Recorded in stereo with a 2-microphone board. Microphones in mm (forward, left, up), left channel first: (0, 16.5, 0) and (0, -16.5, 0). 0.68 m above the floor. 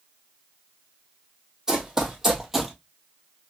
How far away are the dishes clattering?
No dishes clattering in this recording.